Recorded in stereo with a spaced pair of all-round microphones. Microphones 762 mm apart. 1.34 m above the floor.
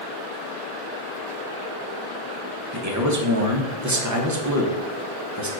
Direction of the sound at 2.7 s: 25° right (ahead or behind).